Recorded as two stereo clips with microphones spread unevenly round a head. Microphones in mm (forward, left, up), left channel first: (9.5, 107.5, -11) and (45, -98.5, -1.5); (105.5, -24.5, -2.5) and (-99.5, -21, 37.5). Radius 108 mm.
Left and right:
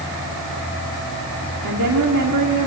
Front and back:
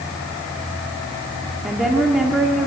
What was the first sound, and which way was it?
A woman speaking, 95° right.